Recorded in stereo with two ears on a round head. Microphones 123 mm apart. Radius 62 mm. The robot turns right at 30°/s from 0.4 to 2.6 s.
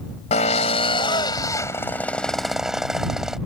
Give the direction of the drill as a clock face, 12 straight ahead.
8 o'clock.